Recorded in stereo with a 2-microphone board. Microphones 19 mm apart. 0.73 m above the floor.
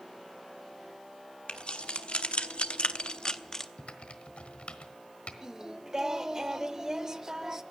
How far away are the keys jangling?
About 1.3 m.